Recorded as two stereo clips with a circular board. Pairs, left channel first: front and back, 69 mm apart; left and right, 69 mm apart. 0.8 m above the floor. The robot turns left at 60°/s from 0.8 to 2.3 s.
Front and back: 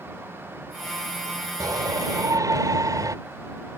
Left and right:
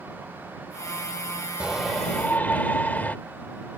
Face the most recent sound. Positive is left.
turn(degrees=155)